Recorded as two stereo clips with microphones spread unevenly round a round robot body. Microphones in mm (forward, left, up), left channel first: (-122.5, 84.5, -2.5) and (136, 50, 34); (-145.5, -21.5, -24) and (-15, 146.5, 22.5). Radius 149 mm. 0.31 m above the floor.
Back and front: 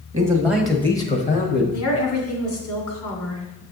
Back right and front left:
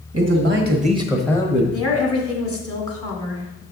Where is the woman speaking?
165° left, 2.5 m.